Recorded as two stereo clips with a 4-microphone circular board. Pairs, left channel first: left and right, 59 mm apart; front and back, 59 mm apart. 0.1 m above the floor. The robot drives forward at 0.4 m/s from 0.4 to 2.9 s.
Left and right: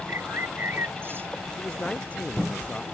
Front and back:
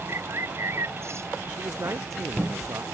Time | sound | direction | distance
0.1 | a bird | 140° right | ?
1.5 | a man speaking | 155° left | ?